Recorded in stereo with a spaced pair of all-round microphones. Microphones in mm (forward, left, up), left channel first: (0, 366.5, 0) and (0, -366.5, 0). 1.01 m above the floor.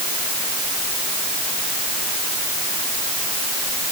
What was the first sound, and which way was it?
Only background noise.